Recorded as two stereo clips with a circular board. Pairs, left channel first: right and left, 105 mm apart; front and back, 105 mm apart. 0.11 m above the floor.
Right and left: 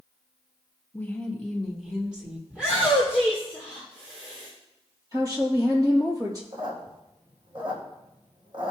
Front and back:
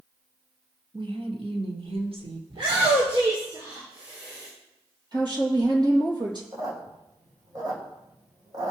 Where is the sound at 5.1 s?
140° left, 3.5 m.